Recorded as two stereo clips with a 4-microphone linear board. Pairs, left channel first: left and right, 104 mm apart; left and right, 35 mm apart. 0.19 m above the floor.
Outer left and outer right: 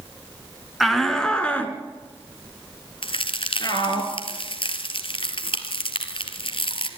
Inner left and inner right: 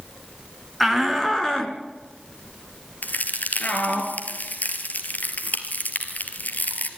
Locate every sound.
0.8 s a shout: centre (ahead or behind), 2.5 m; by 4.0 s 45° left (ahead or behind), 4 m
3.0 s a crack: 65° left (ahead or behind), 2.0 m